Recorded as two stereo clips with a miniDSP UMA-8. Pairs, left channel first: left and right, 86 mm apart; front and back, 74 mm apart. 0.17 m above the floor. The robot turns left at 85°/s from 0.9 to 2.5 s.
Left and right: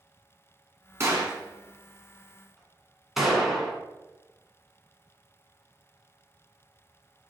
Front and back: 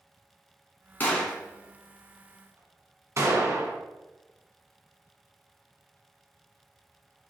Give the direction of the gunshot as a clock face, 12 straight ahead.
2 o'clock.